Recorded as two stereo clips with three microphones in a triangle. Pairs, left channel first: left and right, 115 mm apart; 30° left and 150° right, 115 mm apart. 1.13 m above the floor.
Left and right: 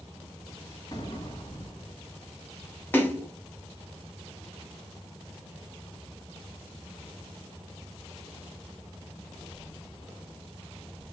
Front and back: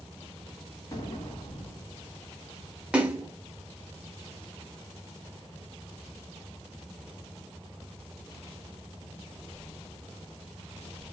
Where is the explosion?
65° left, 1.2 m.